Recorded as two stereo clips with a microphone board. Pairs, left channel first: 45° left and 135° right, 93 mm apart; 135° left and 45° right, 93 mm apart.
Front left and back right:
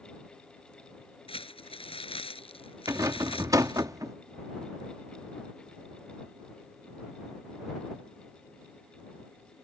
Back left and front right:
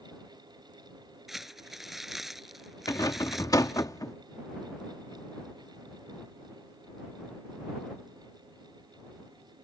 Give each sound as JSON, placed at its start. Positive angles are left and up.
{"t": 1.3, "sound": "crumpling", "azimuth_deg": 40}
{"t": 2.9, "sound": "a rattle", "azimuth_deg": 180}